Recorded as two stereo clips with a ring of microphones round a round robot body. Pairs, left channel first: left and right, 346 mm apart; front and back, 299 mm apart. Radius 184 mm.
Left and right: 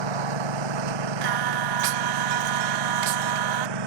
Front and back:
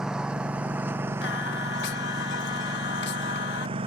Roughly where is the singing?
Ahead right.